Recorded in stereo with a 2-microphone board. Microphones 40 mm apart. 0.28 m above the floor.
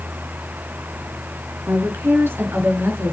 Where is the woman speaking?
65° right (ahead or behind), 4 m.